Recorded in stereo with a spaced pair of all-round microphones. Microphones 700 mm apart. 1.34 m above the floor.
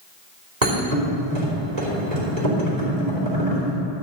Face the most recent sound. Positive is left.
turn(degrees=-70)  # may be behind; listen again after turning